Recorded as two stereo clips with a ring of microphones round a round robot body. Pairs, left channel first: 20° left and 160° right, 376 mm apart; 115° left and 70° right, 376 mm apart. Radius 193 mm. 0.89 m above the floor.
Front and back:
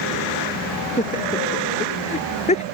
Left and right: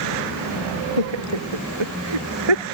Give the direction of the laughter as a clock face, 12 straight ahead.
2 o'clock.